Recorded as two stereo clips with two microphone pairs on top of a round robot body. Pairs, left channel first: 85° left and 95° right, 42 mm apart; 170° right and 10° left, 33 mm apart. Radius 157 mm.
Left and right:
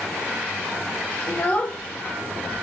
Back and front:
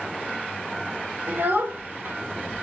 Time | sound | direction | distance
1.3 | a child speaking | 25° left | 1.0 m